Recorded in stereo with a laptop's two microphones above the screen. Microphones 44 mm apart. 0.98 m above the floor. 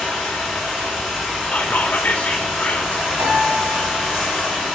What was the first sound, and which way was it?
Running water, centre (ahead or behind).